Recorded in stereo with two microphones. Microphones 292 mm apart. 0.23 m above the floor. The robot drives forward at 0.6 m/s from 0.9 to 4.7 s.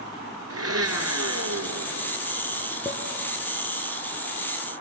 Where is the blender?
55° right (ahead or behind), 1.9 m; by 2.1 s 70° right (ahead or behind), 1.7 m.